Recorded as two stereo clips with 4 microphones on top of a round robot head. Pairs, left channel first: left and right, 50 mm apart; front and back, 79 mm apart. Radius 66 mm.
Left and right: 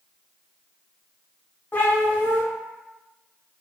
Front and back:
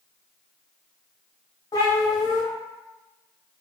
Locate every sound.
1.7 s a cat meowing: 40° left, 1.0 m